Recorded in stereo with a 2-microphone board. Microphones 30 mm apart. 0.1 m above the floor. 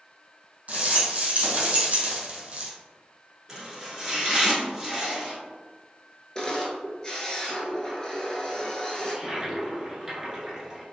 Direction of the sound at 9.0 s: 20° right (ahead or behind).